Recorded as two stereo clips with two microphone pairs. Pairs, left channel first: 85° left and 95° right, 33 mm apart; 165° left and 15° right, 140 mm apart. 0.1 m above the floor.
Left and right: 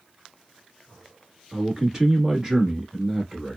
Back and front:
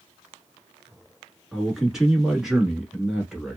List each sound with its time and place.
1.5 s a man speaking: 95° right, 1.2 m